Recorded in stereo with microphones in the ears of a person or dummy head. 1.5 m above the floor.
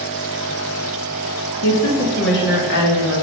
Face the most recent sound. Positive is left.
turn(degrees=65)  # may be behind; listen again after turning